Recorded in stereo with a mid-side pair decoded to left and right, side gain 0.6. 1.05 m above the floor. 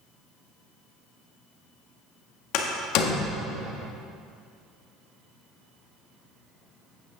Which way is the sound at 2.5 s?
70° left.